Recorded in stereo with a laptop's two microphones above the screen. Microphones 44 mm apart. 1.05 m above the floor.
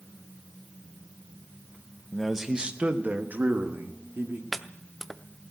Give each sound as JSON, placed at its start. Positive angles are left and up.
{"t": 2.1, "sound": "a man speaking", "side_deg": 5, "distance_m": 0.7}
{"t": 4.5, "sound": "chopping", "side_deg": 5, "distance_m": 0.6}